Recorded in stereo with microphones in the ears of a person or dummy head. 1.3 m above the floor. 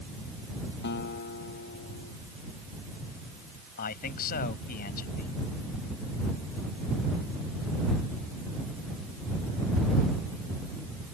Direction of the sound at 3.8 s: 50° left (ahead or behind).